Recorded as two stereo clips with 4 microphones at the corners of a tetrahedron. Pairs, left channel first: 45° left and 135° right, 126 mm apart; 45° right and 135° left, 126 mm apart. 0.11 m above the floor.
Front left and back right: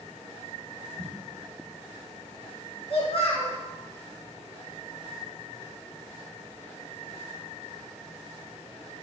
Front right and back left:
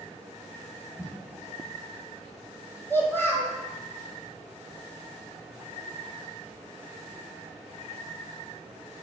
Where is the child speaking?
25° left, 1.3 m.